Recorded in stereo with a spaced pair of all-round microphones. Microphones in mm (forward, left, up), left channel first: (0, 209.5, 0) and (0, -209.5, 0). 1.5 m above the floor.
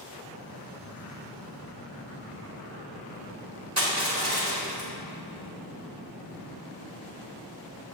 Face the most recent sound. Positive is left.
turn(degrees=-35)  # may be behind; listen again after turning